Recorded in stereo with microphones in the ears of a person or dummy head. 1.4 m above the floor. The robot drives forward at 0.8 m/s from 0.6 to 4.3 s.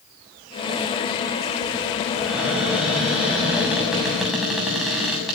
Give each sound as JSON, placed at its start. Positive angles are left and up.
{"t": 2.2, "sound": "a cupboard door", "side_deg": -5, "distance_m": 5.5}